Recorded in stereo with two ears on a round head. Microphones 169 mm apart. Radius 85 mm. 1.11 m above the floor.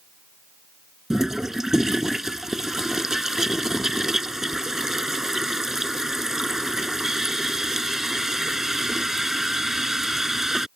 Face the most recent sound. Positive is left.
turn(degrees=0)  # may be behind; listen again after turning